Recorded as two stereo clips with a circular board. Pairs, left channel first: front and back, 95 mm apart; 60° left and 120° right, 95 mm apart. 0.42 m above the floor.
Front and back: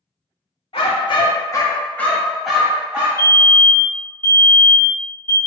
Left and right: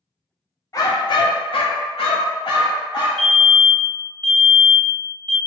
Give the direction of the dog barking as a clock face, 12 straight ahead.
12 o'clock.